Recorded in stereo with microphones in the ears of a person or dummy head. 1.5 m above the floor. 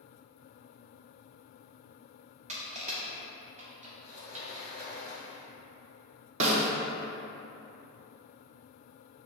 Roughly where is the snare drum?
Right.